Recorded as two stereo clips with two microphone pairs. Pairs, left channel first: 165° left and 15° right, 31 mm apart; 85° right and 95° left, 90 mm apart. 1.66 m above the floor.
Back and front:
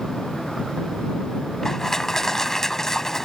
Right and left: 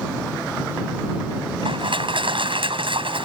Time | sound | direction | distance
1.6 | crushing | 85° left | ?